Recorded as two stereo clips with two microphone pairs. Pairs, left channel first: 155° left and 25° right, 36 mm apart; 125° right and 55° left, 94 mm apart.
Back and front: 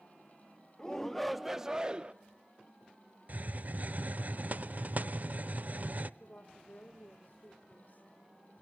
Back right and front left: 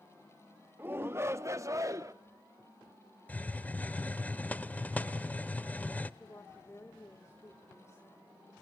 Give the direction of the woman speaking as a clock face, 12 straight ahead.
6 o'clock.